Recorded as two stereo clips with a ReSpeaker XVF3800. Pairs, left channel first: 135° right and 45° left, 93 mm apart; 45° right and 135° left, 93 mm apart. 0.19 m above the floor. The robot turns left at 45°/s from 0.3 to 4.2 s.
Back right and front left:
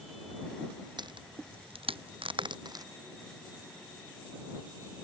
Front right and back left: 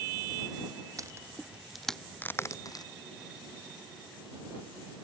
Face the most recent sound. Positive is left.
turn(degrees=-60)